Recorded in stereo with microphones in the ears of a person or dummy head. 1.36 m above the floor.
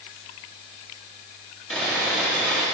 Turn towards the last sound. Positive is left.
turn(degrees=10)  # may be behind; listen again after turning